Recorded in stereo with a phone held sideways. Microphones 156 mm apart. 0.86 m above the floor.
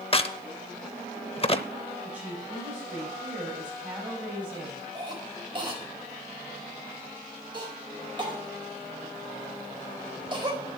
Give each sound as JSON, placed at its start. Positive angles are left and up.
{"t": 0.1, "sound": "a crack", "side_deg": 40, "distance_m": 0.7}
{"t": 2.0, "sound": "a woman speaking", "side_deg": -10, "distance_m": 5.0}
{"t": 5.0, "sound": "a cough", "side_deg": -30, "distance_m": 4.5}